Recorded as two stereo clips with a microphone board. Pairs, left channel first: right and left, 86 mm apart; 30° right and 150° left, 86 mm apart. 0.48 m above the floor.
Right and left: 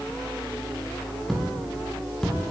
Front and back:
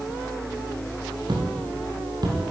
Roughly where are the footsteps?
Behind.